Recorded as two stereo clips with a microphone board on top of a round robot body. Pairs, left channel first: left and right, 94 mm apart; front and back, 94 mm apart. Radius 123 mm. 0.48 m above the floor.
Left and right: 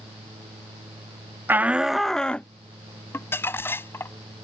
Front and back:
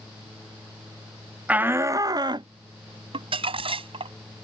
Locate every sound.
1.5 s a shout: 125° right; by 2.5 s 165° left
3.1 s crumpling: 160° left